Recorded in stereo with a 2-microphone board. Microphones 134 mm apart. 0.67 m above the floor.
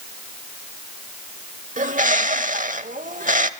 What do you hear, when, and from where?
1.8 s a bird: 75° right (ahead or behind), 0.9 m